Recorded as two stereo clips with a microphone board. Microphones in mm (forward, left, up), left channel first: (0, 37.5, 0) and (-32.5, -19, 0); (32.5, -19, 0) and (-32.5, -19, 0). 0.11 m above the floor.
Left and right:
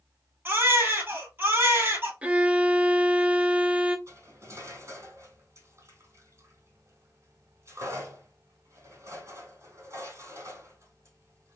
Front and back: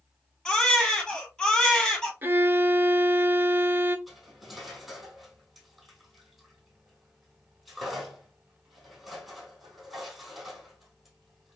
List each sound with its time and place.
0.5 s a baby crying: 75° right, 1.8 m
2.2 s a violin: 170° right, 0.5 m
4.1 s cutlery clinking: 95° right, 2.5 m